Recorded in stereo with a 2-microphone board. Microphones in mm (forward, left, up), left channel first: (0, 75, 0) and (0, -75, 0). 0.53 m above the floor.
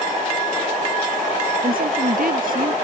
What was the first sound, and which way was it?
A woman speaking, 70° right (ahead or behind).